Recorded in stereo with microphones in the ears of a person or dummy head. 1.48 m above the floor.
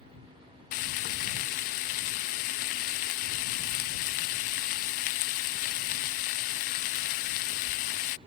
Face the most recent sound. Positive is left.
turn(degrees=40)  # may be behind; listen again after turning